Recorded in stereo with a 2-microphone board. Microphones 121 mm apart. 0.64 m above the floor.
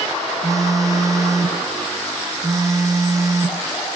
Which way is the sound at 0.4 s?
25° right (ahead or behind).